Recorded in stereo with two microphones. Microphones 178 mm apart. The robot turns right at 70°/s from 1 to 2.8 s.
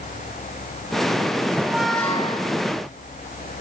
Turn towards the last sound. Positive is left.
turn(degrees=65)